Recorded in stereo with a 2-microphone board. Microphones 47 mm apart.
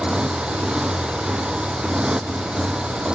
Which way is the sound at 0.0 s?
20° right (ahead or behind).